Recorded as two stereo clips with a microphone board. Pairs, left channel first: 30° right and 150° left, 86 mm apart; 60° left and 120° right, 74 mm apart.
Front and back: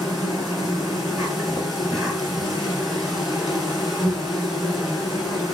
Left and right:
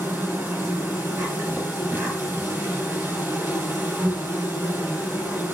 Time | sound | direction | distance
0.0 | an insect | 125° right | 1.8 m